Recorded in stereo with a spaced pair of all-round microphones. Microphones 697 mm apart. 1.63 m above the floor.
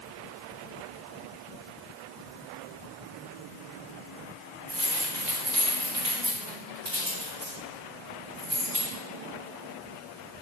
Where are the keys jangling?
75° right (ahead or behind), 3 m; by 8.9 s 45° right (ahead or behind), 3.5 m.